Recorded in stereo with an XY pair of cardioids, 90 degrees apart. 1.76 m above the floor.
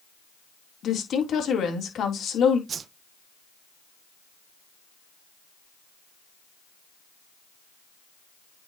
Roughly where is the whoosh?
Ahead right.